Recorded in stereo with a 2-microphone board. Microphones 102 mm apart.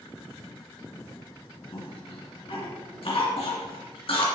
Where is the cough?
65° left (ahead or behind), 2.5 m.